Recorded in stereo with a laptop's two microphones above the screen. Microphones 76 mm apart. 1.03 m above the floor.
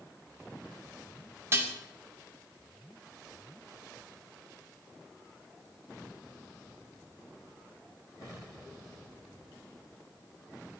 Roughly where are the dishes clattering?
Right.